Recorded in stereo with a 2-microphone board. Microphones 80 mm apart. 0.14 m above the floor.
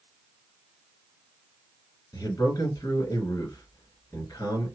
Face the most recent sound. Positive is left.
turn(degrees=45)  # may be behind; listen again after turning